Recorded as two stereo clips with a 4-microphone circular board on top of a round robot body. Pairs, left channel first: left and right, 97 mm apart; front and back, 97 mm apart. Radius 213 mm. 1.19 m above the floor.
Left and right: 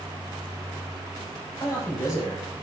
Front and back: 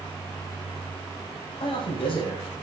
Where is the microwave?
I don't hear a microwave.